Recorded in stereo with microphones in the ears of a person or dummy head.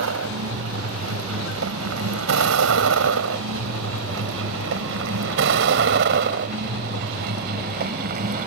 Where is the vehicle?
80° right; by 8.5 s 45° right (ahead or behind).